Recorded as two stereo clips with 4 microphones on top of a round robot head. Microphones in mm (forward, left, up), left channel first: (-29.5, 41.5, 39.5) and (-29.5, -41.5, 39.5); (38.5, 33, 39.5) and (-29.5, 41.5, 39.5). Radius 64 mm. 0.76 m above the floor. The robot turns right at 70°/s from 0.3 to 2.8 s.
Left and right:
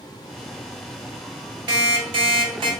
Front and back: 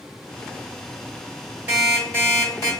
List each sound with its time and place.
1.7 s an alarm clock: 120° right, 1.8 m; by 2.7 s 45° right, 1.8 m